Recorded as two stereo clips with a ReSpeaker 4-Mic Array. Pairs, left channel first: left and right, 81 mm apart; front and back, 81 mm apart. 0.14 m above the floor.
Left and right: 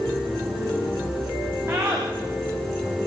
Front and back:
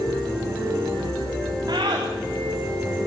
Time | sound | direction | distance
1.7 | a scream | 145° right | 9.5 m